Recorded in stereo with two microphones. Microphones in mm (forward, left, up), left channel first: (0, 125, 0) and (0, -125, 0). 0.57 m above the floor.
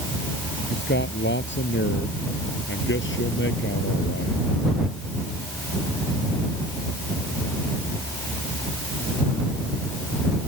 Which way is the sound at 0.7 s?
45° left (ahead or behind).